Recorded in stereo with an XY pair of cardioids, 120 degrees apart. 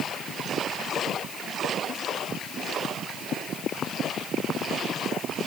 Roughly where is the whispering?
No whispering in this recording.